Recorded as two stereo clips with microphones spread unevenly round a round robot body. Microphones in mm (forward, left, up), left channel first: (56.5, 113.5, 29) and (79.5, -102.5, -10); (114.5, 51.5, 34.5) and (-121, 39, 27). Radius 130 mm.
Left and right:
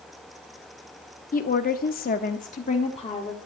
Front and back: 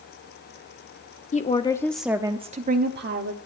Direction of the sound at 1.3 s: 50° left.